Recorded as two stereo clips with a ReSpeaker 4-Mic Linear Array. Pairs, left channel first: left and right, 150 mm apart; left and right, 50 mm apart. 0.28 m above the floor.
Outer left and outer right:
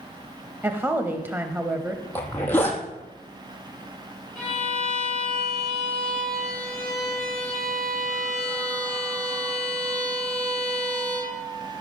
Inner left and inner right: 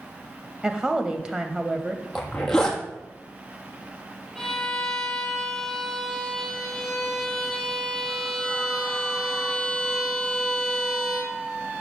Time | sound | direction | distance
0.6 | a woman speaking | 15° right (ahead or behind) | 1.1 m
2.1 | a zipper | 10° left (ahead or behind) | 2.5 m
4.3 | a violin | centre (ahead or behind) | 7.5 m